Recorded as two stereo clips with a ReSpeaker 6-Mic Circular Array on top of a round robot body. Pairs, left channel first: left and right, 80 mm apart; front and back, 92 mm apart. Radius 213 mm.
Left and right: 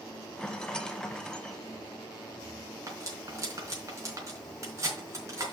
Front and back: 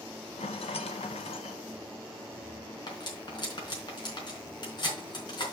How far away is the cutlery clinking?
About 4 m.